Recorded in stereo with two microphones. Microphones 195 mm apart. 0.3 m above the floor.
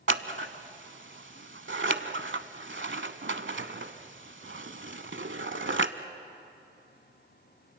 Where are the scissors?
80° right, 0.7 m.